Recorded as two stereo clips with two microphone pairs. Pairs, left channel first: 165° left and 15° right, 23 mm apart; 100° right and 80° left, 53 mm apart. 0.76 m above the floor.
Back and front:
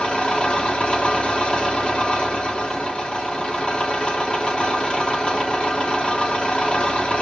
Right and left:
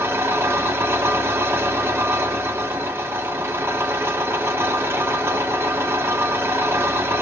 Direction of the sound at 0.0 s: 115° left.